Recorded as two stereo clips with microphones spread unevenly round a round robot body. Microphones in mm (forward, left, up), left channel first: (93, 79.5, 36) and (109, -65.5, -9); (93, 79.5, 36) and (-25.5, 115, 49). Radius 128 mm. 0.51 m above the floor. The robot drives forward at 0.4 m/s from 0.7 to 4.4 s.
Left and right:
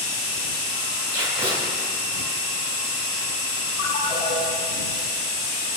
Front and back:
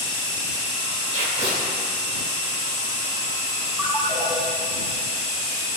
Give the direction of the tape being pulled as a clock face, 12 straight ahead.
5 o'clock.